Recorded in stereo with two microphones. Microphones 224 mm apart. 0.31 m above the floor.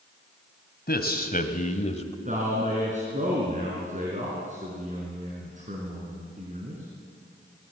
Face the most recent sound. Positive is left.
turn(degrees=-35)  # may be behind; listen again after turning